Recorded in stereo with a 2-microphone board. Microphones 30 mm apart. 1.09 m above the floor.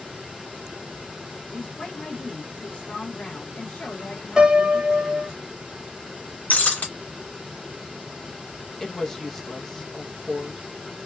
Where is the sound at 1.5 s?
60° left (ahead or behind), 1.5 m.